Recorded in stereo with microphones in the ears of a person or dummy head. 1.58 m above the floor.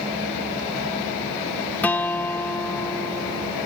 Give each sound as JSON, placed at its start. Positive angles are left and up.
{"t": 1.8, "sound": "a guitar", "side_deg": 5}